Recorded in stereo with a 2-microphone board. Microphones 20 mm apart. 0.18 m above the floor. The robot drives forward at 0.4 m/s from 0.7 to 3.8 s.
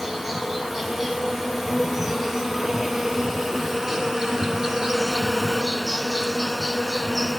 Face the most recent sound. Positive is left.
turn(degrees=-25)  # may be behind; listen again after turning